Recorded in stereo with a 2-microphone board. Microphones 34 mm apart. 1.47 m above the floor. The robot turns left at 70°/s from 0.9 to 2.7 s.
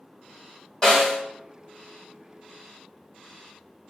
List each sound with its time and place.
0.8 s a snare drum: 20° left (ahead or behind), 1.7 m; by 1.2 s 5° left (ahead or behind), 1.7 m